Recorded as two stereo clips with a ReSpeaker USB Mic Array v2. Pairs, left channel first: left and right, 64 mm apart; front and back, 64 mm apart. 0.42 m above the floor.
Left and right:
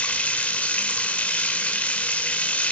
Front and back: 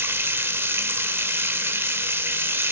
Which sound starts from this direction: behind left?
Running water, at 0.0 s.